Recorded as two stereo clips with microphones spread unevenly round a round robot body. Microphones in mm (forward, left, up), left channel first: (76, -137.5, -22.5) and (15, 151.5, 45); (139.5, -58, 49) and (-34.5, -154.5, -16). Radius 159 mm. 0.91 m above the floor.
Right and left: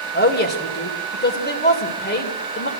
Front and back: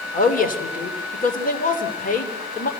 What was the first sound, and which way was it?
A woman speaking, 20° right.